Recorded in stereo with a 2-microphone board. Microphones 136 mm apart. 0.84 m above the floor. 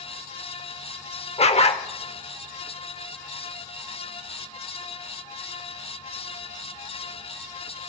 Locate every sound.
1.4 s a dog barking: 50° left (ahead or behind), 0.8 m